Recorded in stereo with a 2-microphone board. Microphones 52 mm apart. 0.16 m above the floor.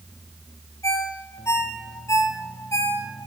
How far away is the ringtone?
About 3 m.